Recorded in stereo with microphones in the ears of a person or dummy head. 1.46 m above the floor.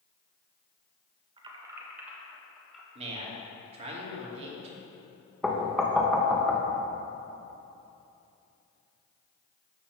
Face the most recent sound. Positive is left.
turn(degrees=5)  # may be behind; listen again after turning